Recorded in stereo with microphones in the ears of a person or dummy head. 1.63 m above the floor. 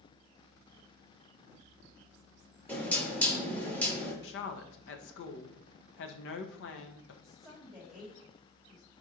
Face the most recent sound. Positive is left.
turn(degrees=0)  # may be behind; listen again after turning